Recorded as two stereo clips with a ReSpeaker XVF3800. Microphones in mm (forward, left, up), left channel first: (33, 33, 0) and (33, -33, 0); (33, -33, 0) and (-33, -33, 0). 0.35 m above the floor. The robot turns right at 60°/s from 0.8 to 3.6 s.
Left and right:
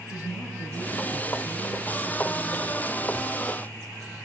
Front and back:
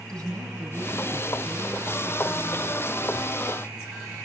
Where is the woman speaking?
75° left, 7.5 m; by 2.8 s 165° right, 7.5 m.